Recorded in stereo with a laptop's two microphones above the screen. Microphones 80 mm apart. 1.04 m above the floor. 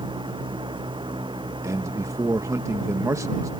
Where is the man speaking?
40° right (ahead or behind).